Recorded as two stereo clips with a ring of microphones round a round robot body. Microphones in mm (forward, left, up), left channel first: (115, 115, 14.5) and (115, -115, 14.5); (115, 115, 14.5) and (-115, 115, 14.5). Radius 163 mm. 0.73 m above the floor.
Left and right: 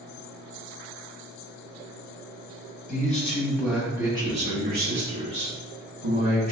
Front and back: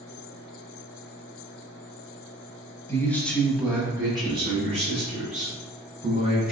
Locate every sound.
2.9 s a man speaking: 70° left, 0.8 m; by 6.5 s 120° right, 1.7 m